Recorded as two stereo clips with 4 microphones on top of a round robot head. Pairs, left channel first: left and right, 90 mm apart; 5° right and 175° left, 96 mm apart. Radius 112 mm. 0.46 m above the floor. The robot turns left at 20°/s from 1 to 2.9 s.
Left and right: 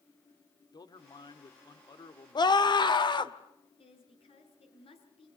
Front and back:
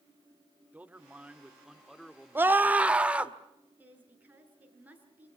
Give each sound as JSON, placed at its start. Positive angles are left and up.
{"t": 0.7, "sound": "a man speaking", "azimuth_deg": 105, "distance_m": 2.0}
{"t": 2.4, "sound": "a scream", "azimuth_deg": 110, "distance_m": 2.0}
{"t": 3.8, "sound": "a woman speaking", "azimuth_deg": 100, "distance_m": 6.5}